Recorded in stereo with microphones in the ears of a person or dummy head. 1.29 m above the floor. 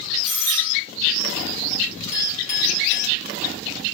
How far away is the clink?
About 1.4 m.